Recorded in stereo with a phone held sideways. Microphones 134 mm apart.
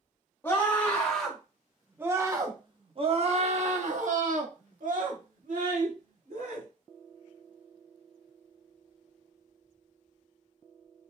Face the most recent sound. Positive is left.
turn(degrees=-85)